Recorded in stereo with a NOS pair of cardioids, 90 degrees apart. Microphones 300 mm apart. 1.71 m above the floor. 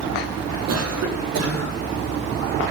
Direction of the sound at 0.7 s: 60° right.